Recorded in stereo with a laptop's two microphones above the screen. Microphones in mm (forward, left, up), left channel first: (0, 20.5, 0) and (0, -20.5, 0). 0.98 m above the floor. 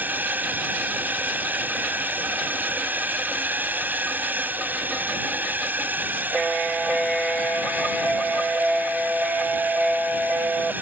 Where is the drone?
40° right (ahead or behind).